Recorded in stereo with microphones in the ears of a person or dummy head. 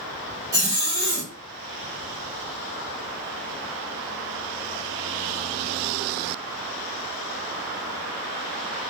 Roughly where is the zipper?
Centre.